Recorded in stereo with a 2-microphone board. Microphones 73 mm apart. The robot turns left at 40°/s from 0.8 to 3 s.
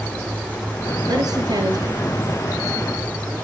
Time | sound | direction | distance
1.1 | a woman speaking | 60° right (ahead or behind) | 4.5 m